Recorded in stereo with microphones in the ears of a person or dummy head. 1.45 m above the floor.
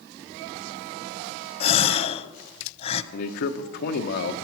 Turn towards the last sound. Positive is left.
turn(degrees=65)  # may be behind; listen again after turning